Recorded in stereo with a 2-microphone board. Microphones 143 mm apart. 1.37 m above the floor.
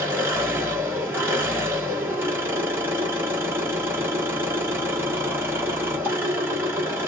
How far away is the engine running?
About 1.7 m.